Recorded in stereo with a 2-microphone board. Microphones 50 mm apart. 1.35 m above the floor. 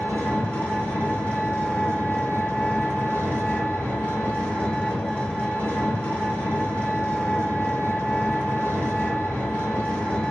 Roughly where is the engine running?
Left.